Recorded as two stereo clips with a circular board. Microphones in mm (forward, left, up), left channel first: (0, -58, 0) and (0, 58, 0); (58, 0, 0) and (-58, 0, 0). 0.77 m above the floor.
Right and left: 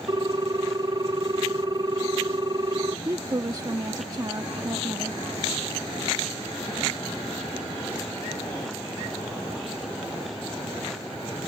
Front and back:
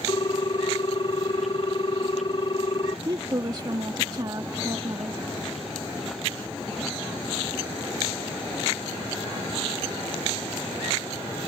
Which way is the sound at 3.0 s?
135° left.